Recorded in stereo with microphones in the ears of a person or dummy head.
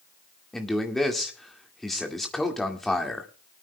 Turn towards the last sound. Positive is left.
turn(degrees=0)  # may be behind; listen again after turning